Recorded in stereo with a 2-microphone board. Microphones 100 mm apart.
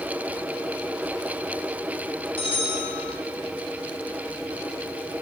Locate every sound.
2.4 s a bell: 65° left (ahead or behind), 2.5 m